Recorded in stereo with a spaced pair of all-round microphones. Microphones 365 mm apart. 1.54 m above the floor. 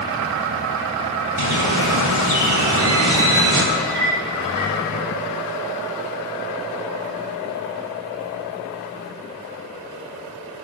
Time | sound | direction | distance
1.4 | a bird | 50° right (ahead or behind) | 2.5 m
3.8 | a clink | 50° right (ahead or behind) | 4 m